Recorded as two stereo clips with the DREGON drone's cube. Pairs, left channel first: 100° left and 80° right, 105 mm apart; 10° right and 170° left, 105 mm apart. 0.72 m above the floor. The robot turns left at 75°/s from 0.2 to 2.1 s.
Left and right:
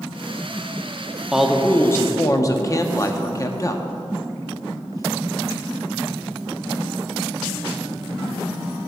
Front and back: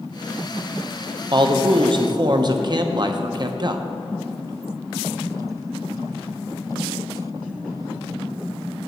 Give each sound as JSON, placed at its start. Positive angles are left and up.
{"t": 1.3, "sound": "a man speaking", "azimuth_deg": -160, "distance_m": 0.6}